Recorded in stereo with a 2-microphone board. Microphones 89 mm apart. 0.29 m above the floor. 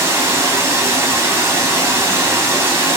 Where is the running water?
30° right (ahead or behind), 0.7 m.